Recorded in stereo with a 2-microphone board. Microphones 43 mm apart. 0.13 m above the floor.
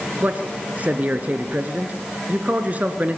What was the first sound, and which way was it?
A man speaking, 35° right (ahead or behind).